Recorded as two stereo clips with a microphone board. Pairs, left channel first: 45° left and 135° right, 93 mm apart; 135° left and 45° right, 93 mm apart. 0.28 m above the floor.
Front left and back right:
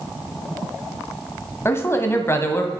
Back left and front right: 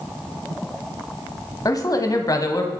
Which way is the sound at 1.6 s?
100° left.